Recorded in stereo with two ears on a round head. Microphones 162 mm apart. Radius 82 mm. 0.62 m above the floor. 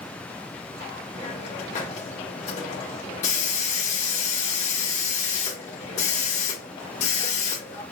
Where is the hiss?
35° left (ahead or behind), 1.4 m.